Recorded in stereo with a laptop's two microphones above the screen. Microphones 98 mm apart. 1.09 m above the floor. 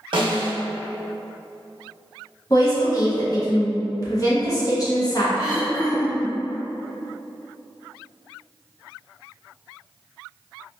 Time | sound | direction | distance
0.1 | a snare drum | 60° right (ahead or behind) | 0.6 m
2.5 | a woman speaking | 40° left (ahead or behind) | 0.7 m
5.3 | throat clearing | 50° left (ahead or behind) | 2.0 m